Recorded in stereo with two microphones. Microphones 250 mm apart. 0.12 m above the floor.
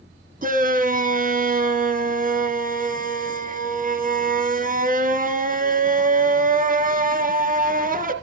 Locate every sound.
0.4 s a shout: 35° right (ahead or behind), 1.4 m